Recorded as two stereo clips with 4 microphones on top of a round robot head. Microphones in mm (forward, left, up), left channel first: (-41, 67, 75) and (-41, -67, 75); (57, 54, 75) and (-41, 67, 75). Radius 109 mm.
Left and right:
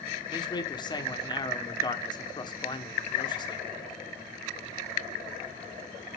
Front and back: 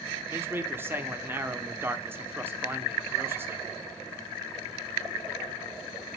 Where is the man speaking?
120° left, 1.1 m.